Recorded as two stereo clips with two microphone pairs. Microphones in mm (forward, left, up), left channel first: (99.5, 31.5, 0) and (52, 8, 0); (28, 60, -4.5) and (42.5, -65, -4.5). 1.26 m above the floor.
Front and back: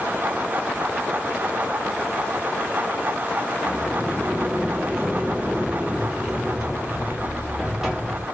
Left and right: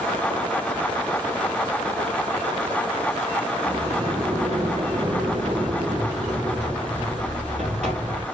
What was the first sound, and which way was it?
A sliding door, 65° right.